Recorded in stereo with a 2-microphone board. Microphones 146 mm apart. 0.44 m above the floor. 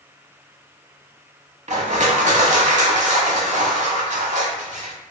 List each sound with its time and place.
1.7 s crushing: 60° right (ahead or behind), 0.6 m